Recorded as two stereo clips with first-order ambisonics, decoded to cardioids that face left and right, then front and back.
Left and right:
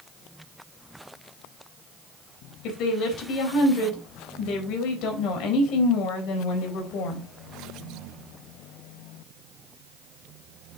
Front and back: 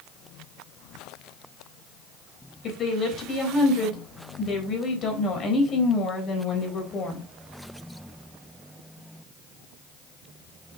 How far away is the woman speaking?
About 3.5 m.